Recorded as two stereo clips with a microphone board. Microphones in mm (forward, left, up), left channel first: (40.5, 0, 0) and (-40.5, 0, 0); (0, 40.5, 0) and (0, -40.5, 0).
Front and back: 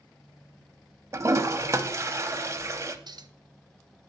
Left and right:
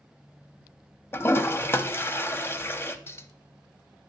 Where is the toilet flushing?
140° left, 0.7 m.